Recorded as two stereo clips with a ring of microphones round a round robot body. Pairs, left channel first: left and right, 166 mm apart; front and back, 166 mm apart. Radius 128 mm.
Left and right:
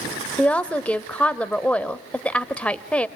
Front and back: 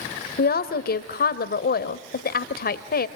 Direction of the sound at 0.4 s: 10° left.